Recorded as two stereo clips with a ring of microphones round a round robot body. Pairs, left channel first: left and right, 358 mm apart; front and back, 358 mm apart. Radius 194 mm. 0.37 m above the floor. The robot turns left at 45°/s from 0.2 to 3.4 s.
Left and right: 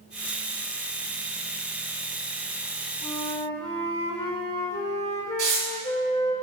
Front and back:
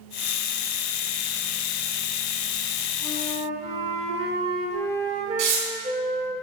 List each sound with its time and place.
3.0 s a flute: 155° left, 1.4 m; by 6.4 s 135° left, 1.4 m
5.4 s tearing paper: 155° right, 3.5 m